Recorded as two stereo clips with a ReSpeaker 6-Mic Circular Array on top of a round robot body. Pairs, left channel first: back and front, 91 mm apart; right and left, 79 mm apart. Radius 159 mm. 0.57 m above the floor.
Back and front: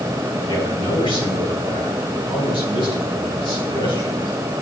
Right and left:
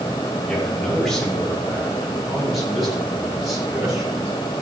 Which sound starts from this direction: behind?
A man speaking, at 0.5 s.